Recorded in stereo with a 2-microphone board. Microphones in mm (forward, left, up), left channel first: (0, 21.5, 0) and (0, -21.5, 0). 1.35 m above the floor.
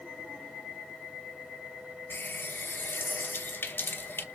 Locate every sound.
2.1 s a running tap: 55° left (ahead or behind), 0.9 m